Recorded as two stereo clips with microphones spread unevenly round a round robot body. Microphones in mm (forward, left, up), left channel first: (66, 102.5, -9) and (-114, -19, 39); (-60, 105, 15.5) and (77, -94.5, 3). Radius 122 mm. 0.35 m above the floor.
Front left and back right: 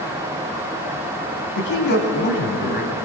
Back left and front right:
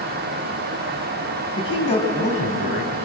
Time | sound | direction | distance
1.6 | a man speaking | 55° left | 3 m